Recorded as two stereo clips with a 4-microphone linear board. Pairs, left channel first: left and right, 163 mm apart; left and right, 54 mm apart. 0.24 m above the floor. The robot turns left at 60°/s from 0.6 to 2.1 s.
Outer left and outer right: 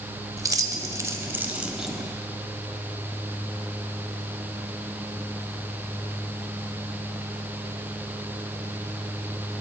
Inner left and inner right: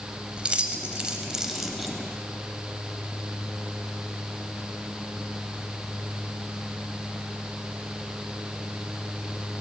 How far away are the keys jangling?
About 0.7 m.